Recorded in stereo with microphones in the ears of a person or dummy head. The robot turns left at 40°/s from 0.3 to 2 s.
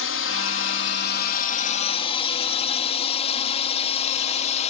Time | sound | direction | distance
0.0 | a drone | 65° left (ahead or behind) | ?